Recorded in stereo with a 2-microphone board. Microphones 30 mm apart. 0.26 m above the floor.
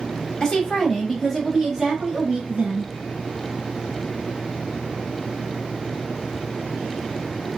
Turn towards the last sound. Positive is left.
turn(degrees=-40)  # may be behind; listen again after turning